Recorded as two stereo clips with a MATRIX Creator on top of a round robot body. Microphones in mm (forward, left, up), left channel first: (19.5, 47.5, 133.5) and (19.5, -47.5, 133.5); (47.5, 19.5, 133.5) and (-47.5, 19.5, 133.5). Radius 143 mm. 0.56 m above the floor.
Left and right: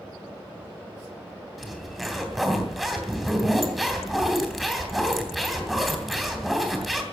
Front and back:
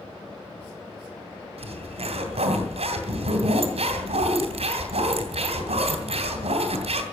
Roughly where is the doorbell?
No doorbell in this recording.